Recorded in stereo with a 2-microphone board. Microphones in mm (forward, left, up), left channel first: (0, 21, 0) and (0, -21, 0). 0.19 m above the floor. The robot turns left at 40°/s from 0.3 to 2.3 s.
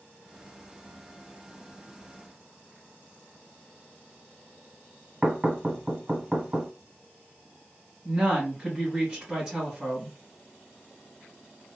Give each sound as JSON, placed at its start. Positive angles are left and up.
{"t": 5.2, "sound": "knocking", "side_deg": -20, "distance_m": 1.1}
{"t": 8.1, "sound": "a woman speaking", "side_deg": -10, "distance_m": 1.9}